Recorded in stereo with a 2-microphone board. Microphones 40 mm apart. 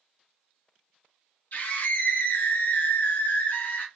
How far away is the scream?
About 1.5 m.